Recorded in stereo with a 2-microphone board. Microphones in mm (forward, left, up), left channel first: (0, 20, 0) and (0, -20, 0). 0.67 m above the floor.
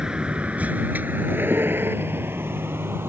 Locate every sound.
0.0 s a vehicle: 15° right (ahead or behind); by 3.1 s 90° right